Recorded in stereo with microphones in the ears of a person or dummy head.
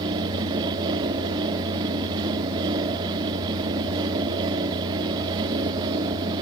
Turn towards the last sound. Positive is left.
turn(degrees=-25)  # may be behind; listen again after turning